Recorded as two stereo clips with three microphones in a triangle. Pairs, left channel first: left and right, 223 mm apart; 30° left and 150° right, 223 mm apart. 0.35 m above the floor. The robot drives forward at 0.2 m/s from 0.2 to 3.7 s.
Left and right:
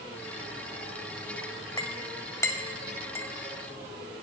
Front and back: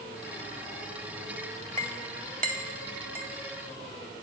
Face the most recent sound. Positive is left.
turn(degrees=170)